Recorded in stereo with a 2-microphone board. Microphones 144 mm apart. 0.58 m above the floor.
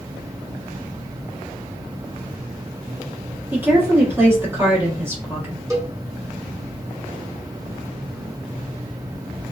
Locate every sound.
3.5 s a woman speaking: 15° right (ahead or behind), 1.1 m
5.7 s a cowbell: 20° right (ahead or behind), 0.6 m